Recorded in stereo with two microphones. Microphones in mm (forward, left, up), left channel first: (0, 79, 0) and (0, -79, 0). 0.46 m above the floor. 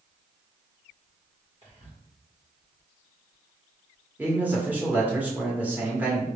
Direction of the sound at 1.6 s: 40° right (ahead or behind).